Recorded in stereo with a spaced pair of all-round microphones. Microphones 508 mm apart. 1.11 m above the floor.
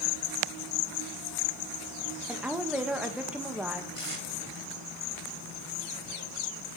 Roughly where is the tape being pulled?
Left.